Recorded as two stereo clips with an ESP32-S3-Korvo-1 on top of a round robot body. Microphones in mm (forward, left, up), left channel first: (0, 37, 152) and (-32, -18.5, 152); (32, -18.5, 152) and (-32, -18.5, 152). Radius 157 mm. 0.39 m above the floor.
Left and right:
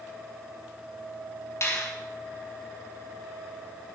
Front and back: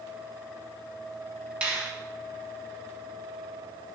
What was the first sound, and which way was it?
A finger snap, 110° left.